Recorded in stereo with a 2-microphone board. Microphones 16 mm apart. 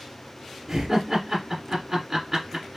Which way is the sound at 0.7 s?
25° right (ahead or behind).